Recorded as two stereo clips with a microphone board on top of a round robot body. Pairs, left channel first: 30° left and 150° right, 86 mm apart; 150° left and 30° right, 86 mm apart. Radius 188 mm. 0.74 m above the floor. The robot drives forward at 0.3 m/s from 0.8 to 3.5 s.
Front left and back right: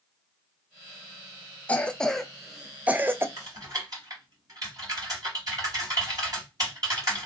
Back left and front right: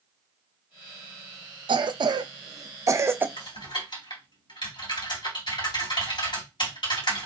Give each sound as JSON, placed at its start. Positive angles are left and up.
{"t": 1.7, "sound": "a cough", "azimuth_deg": -45, "distance_m": 0.7}
{"t": 3.4, "sound": "typing on a keyboard", "azimuth_deg": 170, "distance_m": 2.5}